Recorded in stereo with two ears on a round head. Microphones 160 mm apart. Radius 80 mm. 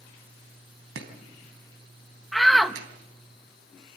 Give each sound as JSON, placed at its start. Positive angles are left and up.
{"t": 0.9, "sound": "chopping", "side_deg": -70, "distance_m": 3.5}
{"t": 2.3, "sound": "a shout", "side_deg": 0, "distance_m": 1.1}